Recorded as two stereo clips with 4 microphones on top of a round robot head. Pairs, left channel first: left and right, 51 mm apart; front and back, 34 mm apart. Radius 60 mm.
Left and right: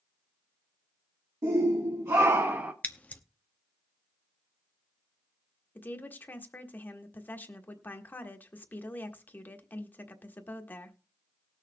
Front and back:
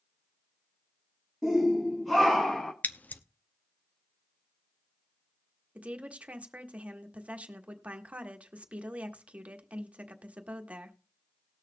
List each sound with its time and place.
1.4 s a shout: 90° right, 1.5 m; by 2.7 s 50° right, 0.7 m
2.8 s scissors: 30° left, 0.7 m
5.8 s a woman speaking: 140° left, 1.5 m